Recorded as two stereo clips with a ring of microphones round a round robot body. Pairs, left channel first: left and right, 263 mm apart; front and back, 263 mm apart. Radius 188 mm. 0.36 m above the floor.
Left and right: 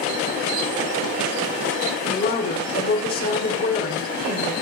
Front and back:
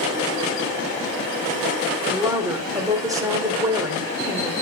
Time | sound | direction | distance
2.1 | a woman speaking | 110° left | 1.8 m